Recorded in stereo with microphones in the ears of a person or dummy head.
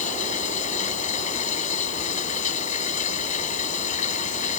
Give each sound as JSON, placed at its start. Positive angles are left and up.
{"t": 0.0, "sound": "running water", "side_deg": 40}